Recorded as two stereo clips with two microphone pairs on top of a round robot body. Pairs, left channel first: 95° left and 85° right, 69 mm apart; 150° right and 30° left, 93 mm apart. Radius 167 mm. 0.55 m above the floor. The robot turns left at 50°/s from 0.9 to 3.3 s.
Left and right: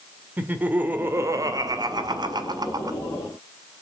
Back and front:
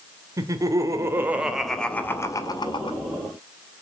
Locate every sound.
0.4 s laughter: 20° right, 2 m; by 3.0 s 125° right, 2 m